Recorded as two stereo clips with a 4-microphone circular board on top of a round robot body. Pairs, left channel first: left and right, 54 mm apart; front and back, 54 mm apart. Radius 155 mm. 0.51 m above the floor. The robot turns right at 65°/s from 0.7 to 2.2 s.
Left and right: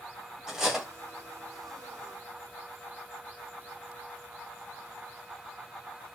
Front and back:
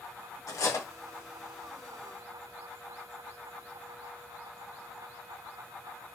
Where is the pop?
No pop in this recording.